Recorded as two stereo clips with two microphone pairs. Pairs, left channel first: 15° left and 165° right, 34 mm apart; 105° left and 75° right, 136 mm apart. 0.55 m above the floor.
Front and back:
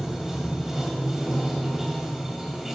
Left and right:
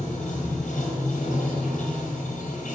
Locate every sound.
0.0 s running water: 115° left, 2 m